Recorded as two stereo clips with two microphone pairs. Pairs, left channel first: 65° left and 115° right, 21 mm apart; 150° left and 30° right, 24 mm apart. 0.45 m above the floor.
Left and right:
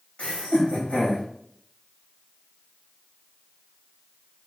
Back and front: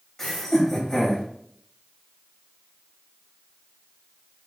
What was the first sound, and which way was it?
Laughter, 75° left.